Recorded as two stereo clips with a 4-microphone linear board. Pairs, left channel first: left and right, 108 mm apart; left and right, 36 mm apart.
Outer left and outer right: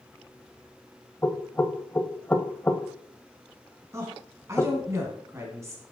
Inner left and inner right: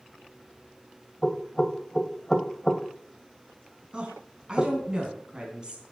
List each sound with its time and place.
1.2 s knocking: 15° left (ahead or behind), 0.8 m
3.9 s a woman speaking: 25° right (ahead or behind), 3 m